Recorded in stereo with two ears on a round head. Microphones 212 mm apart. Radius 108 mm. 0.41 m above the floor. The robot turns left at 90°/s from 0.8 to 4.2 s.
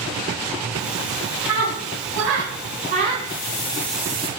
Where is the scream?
5° right (ahead or behind), 3.5 m; by 3.1 s 15° right (ahead or behind), 3.5 m.